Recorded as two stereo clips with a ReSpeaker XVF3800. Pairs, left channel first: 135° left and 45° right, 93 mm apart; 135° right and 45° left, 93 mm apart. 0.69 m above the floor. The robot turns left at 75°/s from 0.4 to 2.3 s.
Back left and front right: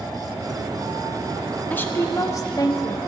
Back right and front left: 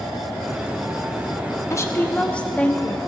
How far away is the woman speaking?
About 1.0 m.